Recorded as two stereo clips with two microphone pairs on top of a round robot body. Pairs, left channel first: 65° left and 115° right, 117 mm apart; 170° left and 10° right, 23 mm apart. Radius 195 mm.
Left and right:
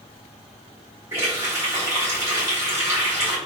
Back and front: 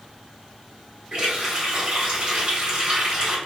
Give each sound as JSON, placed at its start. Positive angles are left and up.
{"t": 1.1, "sound": "a running tap", "azimuth_deg": -50, "distance_m": 1.7}